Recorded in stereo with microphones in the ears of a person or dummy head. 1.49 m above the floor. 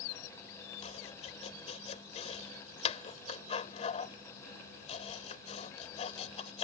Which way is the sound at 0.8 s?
35° left (ahead or behind).